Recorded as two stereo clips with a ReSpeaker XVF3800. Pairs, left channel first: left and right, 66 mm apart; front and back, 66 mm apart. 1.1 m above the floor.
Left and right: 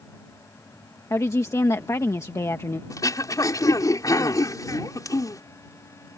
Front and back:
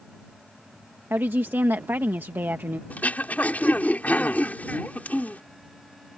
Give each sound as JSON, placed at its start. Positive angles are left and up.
{"t": 1.1, "sound": "a woman speaking", "azimuth_deg": 125}
{"t": 2.9, "sound": "throat clearing", "azimuth_deg": 65}